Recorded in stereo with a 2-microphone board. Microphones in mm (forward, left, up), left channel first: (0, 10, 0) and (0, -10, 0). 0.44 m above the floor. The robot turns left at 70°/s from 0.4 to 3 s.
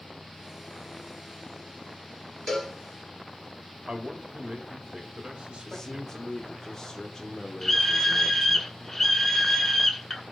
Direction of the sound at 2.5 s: 10° left (ahead or behind).